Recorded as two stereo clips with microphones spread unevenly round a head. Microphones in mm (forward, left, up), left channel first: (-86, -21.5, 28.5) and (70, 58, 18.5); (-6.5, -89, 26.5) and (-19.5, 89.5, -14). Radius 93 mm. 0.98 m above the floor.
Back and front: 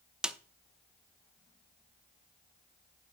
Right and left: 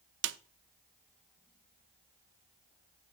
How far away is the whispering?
No whispering in this recording.